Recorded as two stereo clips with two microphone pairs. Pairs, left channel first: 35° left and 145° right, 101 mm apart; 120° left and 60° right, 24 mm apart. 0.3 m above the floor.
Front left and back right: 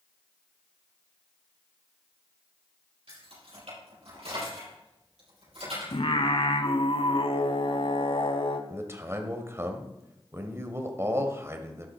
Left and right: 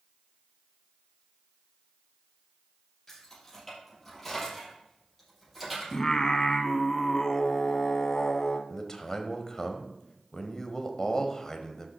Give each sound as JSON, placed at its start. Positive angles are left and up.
{"t": 3.1, "sound": "keys jangling", "azimuth_deg": -160, "distance_m": 5.0}
{"t": 5.9, "sound": "singing", "azimuth_deg": 55, "distance_m": 0.9}
{"t": 8.7, "sound": "a man speaking", "azimuth_deg": 175, "distance_m": 1.1}